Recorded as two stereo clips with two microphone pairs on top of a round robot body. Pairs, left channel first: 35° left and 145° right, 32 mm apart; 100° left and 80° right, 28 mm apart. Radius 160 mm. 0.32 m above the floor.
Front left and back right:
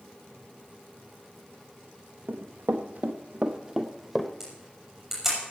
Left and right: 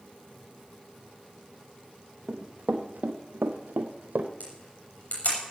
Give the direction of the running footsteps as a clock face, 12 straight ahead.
4 o'clock.